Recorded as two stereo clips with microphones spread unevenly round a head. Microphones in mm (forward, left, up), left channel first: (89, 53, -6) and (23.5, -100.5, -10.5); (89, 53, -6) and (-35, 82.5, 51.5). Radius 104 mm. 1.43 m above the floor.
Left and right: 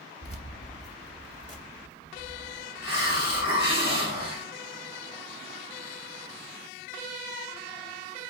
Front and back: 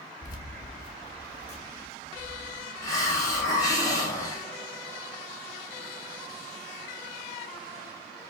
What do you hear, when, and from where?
0.2 s keys jangling: 15° left, 1.4 m; by 3.8 s 40° left, 3 m
2.8 s a hiss: 55° left, 2.5 m